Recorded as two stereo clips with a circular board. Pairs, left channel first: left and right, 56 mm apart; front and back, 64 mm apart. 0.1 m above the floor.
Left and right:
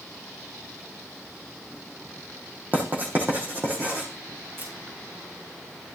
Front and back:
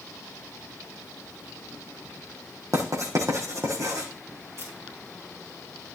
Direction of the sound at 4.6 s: 140° right.